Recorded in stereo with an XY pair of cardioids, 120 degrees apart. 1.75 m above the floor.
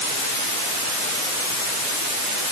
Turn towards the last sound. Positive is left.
No sound to turn to.